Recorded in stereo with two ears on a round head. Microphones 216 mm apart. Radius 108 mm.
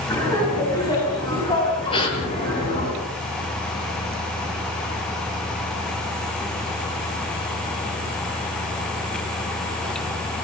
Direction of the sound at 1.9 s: 20° left (ahead or behind).